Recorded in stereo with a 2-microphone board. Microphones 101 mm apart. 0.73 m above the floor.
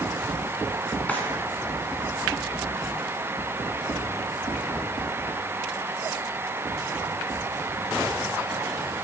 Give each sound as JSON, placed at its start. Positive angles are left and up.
{"t": 1.1, "sound": "a drawer", "side_deg": 15, "distance_m": 2.5}